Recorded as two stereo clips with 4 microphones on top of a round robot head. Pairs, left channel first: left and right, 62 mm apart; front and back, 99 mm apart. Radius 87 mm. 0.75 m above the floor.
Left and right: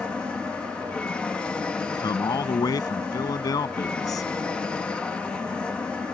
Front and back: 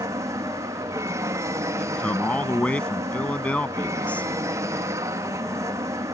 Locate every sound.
0.0 s an aircraft: 155° left
1.8 s a man speaking: 75° left